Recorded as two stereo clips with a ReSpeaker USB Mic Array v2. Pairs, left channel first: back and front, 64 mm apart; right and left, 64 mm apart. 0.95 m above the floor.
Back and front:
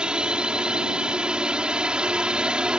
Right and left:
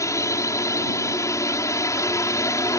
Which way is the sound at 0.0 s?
75° right.